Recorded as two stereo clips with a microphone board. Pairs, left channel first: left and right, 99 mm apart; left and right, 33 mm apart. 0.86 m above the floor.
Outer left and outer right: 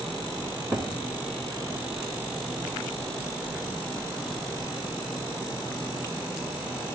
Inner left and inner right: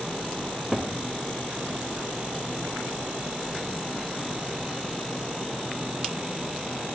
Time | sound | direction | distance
0.7 | a cupboard door | 20° right (ahead or behind) | 1.9 m